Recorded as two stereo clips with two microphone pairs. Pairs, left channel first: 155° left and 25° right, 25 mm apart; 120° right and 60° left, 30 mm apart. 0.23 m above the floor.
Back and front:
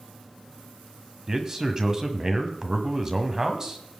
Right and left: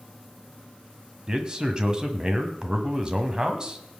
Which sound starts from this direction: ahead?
A man speaking, at 1.3 s.